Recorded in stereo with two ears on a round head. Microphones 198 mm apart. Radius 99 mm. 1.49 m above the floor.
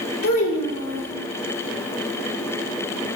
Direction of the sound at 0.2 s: 65° left (ahead or behind).